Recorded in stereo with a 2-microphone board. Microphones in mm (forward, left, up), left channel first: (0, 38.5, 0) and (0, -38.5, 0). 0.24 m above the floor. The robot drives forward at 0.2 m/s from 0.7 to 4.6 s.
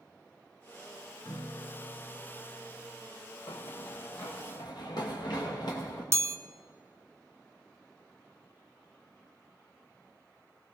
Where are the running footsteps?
70° left (ahead or behind), 1.4 m; by 6.0 s 65° left (ahead or behind), 4 m.